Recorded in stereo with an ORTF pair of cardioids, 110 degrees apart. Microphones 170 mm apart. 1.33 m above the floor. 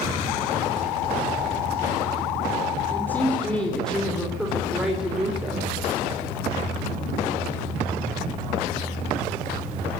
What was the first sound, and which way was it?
A woman speaking, 10° left.